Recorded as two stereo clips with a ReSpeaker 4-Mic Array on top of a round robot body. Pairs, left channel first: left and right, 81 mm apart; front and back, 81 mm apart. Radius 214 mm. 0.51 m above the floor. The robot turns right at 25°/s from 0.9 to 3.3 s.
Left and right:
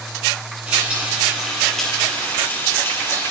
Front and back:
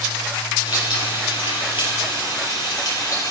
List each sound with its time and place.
0.7 s frying: 15° right, 7 m; by 3.3 s 45° left, 7 m